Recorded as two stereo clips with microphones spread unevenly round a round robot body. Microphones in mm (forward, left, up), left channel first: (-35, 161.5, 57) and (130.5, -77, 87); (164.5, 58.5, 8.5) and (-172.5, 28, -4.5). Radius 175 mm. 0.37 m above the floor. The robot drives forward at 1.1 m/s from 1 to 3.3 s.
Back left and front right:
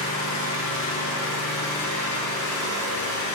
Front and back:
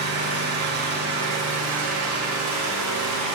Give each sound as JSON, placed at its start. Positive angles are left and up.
{"t": 0.0, "sound": "an engine running", "azimuth_deg": 125, "distance_m": 3.5}